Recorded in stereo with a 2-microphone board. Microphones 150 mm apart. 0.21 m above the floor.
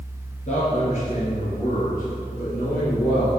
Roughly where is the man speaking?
Left.